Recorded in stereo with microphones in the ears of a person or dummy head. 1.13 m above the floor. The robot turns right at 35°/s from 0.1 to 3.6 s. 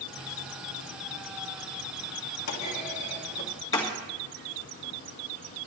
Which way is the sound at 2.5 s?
50° left (ahead or behind).